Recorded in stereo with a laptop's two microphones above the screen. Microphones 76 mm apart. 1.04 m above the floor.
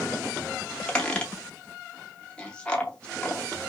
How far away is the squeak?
About 0.6 m.